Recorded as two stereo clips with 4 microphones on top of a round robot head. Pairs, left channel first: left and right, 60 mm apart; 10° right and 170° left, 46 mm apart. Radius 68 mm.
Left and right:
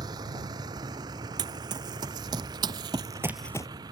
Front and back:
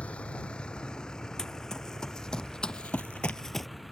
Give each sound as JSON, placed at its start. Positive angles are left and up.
{"t": 0.0, "sound": "a vehicle", "azimuth_deg": -80}
{"t": 1.4, "sound": "running footsteps", "azimuth_deg": -95}